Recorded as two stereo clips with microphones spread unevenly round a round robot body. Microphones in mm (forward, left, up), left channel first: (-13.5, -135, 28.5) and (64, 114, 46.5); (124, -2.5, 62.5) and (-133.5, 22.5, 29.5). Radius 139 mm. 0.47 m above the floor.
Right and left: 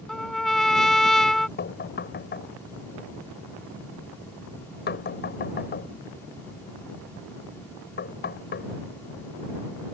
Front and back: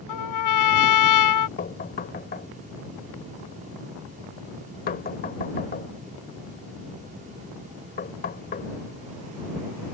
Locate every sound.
0.1 s a trumpet: 20° right
1.6 s knocking: 60° right